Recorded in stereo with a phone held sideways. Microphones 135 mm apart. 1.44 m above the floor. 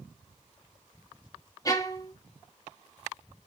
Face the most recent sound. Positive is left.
turn(degrees=25)  # may be behind; listen again after turning